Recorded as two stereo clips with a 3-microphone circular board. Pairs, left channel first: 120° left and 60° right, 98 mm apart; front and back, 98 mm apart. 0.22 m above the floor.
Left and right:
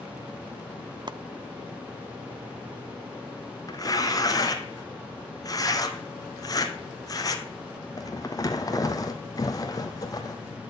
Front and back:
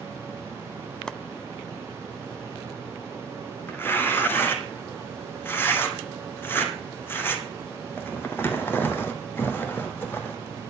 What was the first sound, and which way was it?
Chopping, 80° right.